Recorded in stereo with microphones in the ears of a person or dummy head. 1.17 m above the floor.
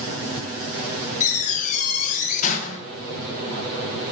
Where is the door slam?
50° left (ahead or behind), 1.4 m.